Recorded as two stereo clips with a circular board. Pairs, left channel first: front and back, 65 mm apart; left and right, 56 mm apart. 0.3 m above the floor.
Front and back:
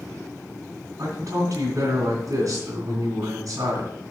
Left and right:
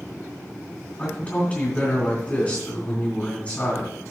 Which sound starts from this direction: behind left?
A man speaking, at 1.0 s.